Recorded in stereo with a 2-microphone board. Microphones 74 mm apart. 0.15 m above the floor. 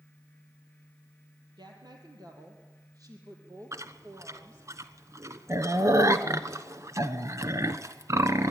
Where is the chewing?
45° right (ahead or behind), 1.0 m.